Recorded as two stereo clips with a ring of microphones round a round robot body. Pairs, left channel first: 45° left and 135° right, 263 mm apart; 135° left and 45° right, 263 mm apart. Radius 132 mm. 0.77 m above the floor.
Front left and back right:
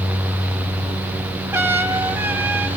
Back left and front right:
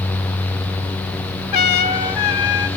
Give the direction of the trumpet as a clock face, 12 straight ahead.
7 o'clock.